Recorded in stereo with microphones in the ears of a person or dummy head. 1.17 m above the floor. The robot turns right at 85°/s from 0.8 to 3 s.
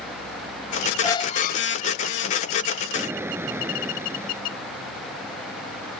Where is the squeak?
15° left; by 1.8 s 75° left.